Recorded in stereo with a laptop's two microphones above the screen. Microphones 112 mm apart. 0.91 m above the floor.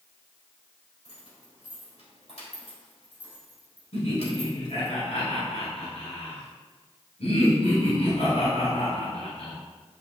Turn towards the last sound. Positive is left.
turn(degrees=70)  # may be behind; listen again after turning